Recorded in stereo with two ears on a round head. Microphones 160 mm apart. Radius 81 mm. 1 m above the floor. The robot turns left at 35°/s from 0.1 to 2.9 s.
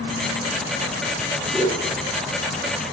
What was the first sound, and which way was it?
A whoosh, 5° right (ahead or behind).